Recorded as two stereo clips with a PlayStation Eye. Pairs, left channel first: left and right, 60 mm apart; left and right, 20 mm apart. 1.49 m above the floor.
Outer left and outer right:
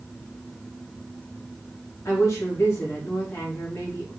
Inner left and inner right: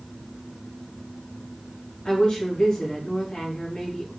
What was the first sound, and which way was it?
A woman speaking, 50° left (ahead or behind).